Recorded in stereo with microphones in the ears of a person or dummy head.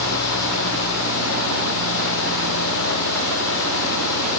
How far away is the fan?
About 1.0 m.